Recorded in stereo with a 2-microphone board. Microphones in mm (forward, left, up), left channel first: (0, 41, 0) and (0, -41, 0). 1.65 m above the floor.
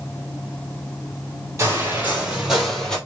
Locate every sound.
1.6 s footsteps: 35° right (ahead or behind), 2.5 m; by 3.0 s 10° left (ahead or behind), 2 m